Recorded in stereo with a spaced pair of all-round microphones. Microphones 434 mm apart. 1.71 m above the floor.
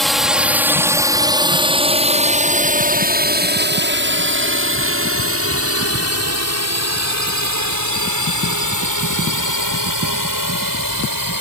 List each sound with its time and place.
0.0 s a drone: centre (ahead or behind); by 11.4 s 50° right (ahead or behind)